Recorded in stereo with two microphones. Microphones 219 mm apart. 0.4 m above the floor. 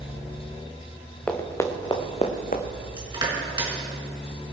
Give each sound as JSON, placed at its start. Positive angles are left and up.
{"t": 1.3, "sound": "running footsteps", "side_deg": 5, "distance_m": 1.8}
{"t": 3.0, "sound": "crushing", "side_deg": -20, "distance_m": 4.0}